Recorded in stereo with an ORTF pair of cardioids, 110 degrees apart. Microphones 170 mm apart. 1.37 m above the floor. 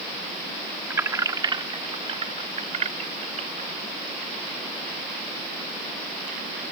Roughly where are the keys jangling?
Ahead.